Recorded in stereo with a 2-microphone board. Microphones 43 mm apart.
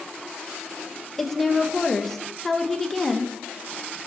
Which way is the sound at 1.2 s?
5° left (ahead or behind).